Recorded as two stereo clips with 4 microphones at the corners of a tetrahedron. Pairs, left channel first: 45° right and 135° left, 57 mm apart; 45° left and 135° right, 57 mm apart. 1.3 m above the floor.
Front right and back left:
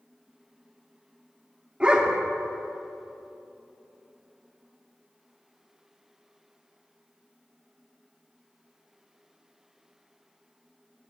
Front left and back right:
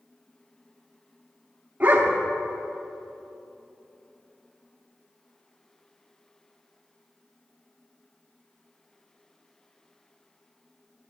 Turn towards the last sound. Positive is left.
turn(degrees=-170)